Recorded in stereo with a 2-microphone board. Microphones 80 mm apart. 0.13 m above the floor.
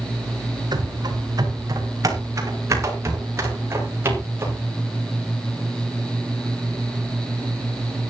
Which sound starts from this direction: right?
Running footsteps, at 0.7 s.